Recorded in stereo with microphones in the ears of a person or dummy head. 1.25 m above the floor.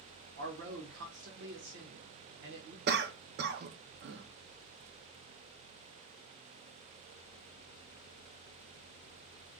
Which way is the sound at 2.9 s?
45° right (ahead or behind).